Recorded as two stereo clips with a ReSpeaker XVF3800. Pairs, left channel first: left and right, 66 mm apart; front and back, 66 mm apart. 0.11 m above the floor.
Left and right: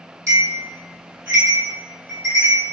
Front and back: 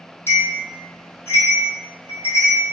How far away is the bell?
About 1.2 m.